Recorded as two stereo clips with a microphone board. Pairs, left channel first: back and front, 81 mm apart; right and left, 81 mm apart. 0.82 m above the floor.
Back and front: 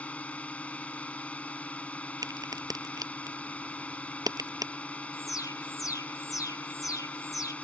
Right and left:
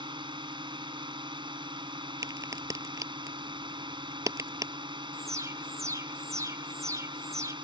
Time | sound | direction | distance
0.0 | a drone | 105° left | ?
2.2 | a crack | 40° left | ?
5.1 | an alarm | 140° left | ?